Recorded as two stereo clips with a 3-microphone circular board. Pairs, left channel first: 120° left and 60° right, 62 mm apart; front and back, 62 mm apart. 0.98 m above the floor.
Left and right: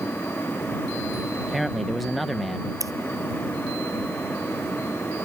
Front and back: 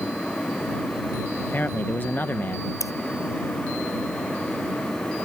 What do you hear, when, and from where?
1.4 s a man speaking: 30° left
2.8 s scissors: 30° right